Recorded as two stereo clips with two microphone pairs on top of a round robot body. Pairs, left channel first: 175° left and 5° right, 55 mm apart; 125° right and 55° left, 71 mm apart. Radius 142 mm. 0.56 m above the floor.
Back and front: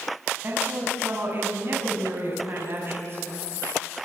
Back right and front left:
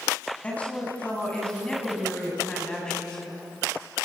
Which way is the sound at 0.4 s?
55° right.